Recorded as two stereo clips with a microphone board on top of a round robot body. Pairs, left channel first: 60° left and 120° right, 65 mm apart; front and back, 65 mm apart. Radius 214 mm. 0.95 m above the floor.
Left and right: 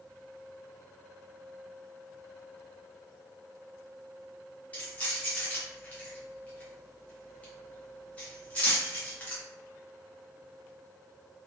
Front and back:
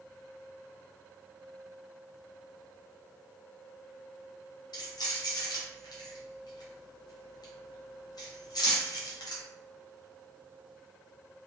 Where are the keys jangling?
10° right, 0.8 m.